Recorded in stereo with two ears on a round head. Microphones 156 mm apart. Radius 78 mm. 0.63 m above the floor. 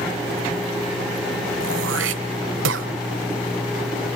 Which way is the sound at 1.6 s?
80° right.